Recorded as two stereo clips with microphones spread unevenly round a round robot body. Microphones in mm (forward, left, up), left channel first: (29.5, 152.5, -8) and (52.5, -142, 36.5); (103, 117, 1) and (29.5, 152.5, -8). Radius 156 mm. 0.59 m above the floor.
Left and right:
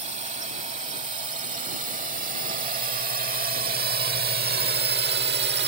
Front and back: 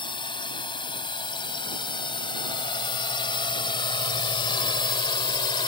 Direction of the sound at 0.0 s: 15° right.